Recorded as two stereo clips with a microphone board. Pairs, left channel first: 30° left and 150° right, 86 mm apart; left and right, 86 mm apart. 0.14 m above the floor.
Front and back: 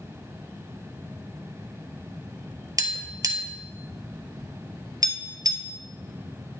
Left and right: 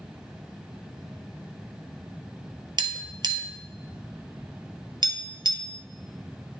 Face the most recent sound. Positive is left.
turn(degrees=-110)